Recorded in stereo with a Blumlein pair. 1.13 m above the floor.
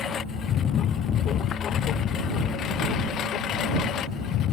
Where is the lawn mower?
25° left; by 4.5 s 30° left.